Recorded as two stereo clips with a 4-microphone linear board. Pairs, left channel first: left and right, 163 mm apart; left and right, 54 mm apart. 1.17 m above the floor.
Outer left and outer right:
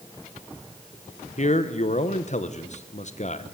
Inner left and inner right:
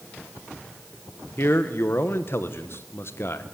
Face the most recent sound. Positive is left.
turn(degrees=50)  # may be behind; listen again after turning